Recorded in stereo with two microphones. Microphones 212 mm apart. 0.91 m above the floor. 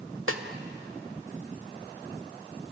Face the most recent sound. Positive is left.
turn(degrees=-85)